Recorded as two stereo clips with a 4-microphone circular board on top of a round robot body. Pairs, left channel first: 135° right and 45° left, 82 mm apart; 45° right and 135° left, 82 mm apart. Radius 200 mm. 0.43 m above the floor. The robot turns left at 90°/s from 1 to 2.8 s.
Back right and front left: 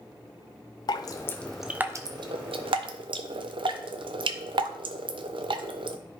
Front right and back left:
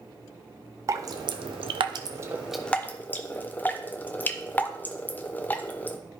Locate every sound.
0.9 s dripping: 175° right, 0.5 m; by 6.0 s 25° left, 0.5 m